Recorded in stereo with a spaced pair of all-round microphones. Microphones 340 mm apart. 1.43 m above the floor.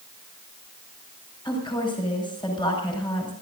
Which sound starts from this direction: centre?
A woman speaking, at 1.4 s.